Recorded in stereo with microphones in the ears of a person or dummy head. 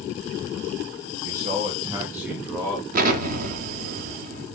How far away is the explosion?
About 0.5 m.